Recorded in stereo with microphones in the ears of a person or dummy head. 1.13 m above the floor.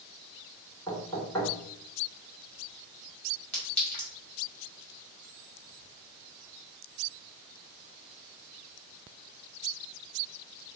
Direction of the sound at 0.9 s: 10° left (ahead or behind).